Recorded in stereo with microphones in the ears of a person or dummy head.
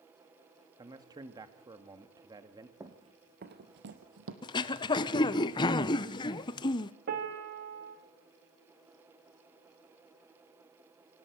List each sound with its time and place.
0.8 s a man speaking: 15° right (ahead or behind), 1.5 m
2.8 s running footsteps: 15° right (ahead or behind), 1.4 m; by 4.3 s 65° right (ahead or behind), 2.5 m
4.4 s throat clearing: 20° left (ahead or behind), 0.6 m
7.1 s a piano: 50° right (ahead or behind), 2 m